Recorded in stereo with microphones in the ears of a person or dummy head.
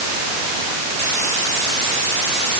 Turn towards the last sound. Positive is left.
No sound to turn to.